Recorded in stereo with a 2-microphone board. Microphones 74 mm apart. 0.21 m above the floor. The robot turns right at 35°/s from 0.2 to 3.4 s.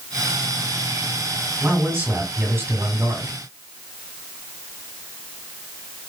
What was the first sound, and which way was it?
A man speaking, 140° right.